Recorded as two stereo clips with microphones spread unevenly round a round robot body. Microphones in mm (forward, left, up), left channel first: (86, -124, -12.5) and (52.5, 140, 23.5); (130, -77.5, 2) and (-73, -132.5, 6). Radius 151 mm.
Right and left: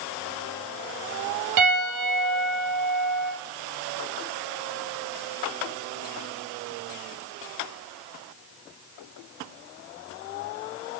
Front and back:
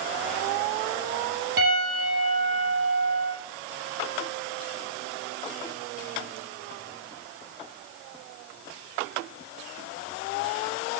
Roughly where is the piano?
Behind left.